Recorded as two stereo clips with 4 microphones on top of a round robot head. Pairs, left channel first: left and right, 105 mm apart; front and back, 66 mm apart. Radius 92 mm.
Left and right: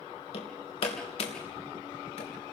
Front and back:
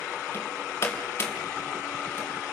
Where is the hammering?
55° left, 3 m.